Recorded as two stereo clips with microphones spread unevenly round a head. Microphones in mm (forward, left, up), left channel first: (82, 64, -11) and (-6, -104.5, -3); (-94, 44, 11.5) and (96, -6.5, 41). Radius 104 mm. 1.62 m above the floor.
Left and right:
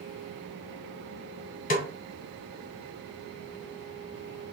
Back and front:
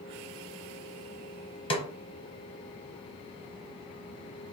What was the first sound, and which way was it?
A snare drum, 100° left.